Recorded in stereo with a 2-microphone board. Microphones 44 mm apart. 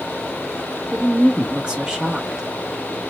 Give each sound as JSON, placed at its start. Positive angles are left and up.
{"t": 0.9, "sound": "a woman speaking", "side_deg": -20, "distance_m": 1.1}